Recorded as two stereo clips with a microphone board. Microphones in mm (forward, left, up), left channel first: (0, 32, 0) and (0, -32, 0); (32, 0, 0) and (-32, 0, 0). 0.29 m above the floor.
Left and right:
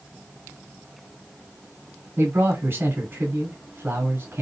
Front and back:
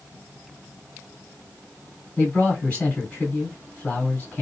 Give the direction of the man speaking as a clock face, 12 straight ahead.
2 o'clock.